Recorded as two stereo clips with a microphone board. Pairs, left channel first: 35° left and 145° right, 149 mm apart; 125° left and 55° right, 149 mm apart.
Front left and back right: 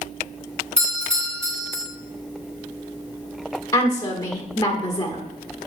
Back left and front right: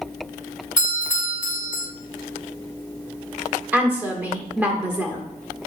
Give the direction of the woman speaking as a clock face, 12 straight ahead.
12 o'clock.